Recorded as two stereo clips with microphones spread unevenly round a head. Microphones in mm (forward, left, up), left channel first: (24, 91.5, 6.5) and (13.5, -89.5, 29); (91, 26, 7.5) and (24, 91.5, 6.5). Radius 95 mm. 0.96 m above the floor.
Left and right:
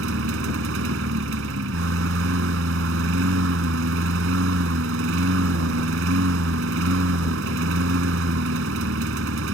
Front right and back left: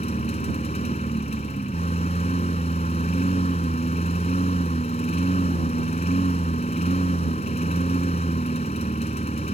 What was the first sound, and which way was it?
A lawn mower, 85° right.